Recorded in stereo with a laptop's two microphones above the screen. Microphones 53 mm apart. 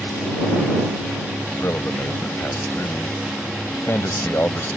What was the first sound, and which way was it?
A man speaking, 50° left (ahead or behind).